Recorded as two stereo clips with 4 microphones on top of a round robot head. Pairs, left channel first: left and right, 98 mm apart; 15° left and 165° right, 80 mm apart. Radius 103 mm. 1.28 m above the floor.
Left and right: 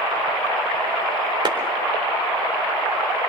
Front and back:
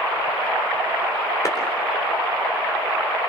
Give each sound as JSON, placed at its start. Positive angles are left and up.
{"t": 1.4, "sound": "a clap", "azimuth_deg": -45, "distance_m": 4.0}